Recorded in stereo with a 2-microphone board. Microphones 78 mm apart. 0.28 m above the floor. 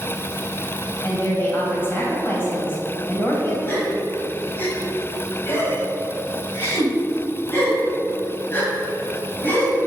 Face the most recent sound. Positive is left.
turn(degrees=25)  # may be behind; listen again after turning